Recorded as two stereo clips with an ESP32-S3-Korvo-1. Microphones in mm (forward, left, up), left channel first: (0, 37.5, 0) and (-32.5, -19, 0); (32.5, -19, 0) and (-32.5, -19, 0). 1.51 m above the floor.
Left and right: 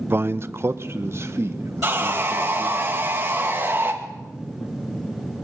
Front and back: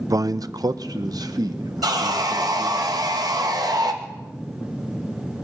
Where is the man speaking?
170° right, 0.5 m.